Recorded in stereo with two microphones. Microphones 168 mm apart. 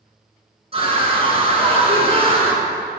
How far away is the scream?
About 1.8 m.